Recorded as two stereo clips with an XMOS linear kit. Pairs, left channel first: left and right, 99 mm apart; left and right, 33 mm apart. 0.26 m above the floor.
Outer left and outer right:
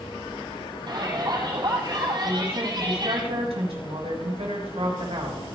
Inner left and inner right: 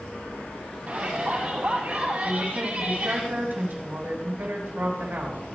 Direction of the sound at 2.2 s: 75° right (ahead or behind).